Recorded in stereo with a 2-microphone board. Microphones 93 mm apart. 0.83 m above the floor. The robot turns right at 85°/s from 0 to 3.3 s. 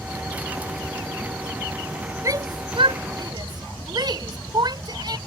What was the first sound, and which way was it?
A shout, 35° right (ahead or behind).